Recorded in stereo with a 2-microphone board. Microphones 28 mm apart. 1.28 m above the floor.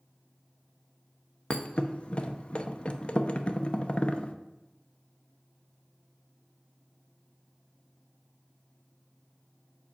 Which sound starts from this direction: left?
A thud, at 1.5 s.